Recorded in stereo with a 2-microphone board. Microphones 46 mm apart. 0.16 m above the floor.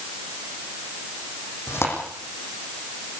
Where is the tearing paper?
65° left (ahead or behind), 9.5 m.